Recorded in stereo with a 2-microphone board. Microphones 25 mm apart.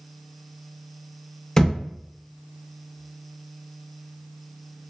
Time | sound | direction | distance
1.6 | a thud | 20° left (ahead or behind) | 0.5 m